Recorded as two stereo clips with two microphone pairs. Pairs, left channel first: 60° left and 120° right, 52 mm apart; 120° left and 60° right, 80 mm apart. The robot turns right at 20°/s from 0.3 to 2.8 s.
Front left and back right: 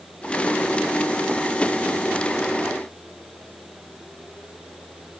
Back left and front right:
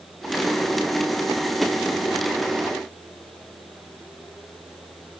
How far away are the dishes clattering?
I don't hear dishes clattering.